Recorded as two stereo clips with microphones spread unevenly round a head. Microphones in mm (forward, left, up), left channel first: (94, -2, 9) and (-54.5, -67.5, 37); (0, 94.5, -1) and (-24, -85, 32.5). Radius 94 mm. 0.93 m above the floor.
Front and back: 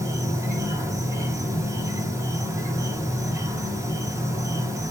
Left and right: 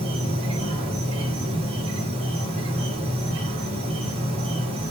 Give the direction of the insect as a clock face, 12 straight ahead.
3 o'clock.